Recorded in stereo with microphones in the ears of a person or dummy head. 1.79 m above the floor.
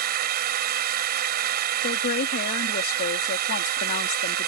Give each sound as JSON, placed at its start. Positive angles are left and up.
{"t": 0.0, "sound": "a drone", "side_deg": -50}
{"t": 1.8, "sound": "a woman speaking", "side_deg": 50}